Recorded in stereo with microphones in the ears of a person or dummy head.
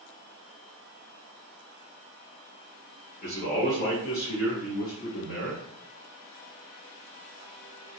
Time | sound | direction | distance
3.2 | a man speaking | 40° left (ahead or behind) | 1.3 m